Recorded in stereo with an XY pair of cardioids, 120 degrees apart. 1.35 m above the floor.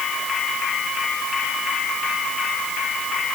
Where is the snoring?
I don't hear snoring.